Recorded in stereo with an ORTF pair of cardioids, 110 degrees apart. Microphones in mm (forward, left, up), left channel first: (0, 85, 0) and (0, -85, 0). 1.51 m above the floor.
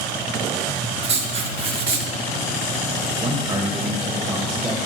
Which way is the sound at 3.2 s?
30° right.